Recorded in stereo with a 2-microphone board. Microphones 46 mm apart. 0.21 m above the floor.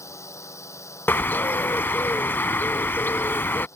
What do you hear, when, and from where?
0.0 s a drone: 80° left
1.1 s a bird: 50° left (ahead or behind)